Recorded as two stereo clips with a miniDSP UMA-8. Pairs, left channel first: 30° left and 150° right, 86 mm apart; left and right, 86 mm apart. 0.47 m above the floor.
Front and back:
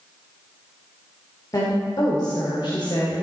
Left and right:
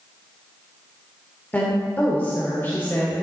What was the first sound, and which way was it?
A woman speaking, 30° left.